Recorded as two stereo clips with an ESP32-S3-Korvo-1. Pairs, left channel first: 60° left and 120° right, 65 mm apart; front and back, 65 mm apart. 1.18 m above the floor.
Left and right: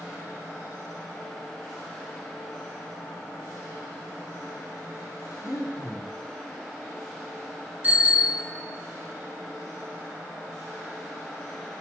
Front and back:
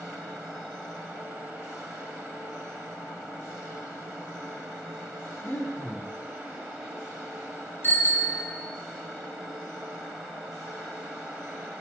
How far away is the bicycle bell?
About 2 m.